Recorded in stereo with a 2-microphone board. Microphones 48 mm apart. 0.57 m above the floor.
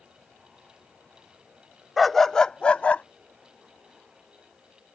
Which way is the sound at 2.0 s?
Centre (ahead or behind).